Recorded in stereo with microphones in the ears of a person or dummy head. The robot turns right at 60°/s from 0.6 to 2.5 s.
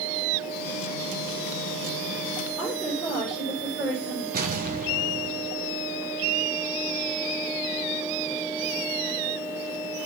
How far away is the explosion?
About 1.3 m.